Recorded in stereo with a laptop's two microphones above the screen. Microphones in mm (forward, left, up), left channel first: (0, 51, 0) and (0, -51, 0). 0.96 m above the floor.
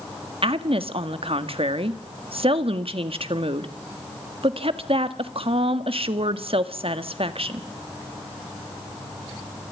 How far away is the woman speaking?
About 1.5 m.